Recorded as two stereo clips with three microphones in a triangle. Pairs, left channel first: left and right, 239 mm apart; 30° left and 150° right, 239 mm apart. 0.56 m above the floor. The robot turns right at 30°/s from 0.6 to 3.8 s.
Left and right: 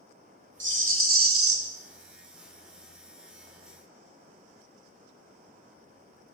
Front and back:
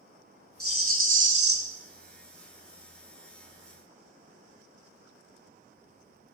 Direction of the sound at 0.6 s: 130° right.